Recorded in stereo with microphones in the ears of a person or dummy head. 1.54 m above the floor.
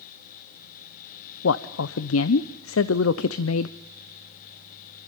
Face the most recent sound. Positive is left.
turn(degrees=90)